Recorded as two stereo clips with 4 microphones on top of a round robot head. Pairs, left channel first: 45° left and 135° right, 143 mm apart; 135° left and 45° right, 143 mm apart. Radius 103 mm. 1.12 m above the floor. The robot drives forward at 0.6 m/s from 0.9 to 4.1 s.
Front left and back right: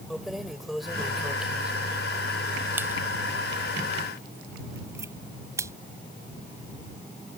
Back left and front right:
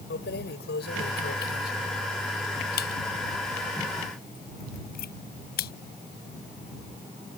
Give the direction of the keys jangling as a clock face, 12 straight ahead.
8 o'clock.